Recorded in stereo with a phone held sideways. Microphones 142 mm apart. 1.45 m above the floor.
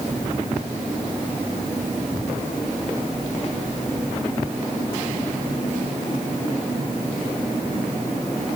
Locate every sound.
Only background noise.